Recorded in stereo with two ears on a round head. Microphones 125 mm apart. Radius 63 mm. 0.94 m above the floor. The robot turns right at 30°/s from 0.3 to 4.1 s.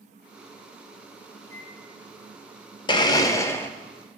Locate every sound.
1.4 s a microwave: 20° left (ahead or behind), 2.5 m; by 2.3 s 45° left (ahead or behind), 2.5 m
2.9 s a blender: 35° left (ahead or behind), 0.6 m; by 3.7 s 15° left (ahead or behind), 0.6 m